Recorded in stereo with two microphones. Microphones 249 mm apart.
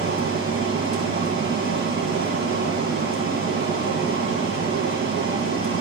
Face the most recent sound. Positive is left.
turn(degrees=-65)  # may be behind; listen again after turning